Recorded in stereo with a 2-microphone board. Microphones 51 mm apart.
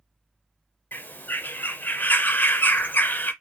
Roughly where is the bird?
Left.